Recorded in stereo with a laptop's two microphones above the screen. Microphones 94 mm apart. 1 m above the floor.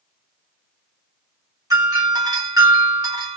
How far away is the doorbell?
About 1.4 m.